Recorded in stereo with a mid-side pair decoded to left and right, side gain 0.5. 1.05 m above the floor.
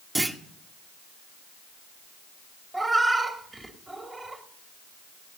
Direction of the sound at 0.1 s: 15° right.